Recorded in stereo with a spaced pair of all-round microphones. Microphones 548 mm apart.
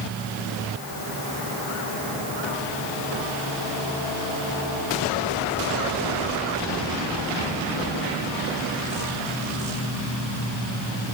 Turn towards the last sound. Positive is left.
No sound to turn to.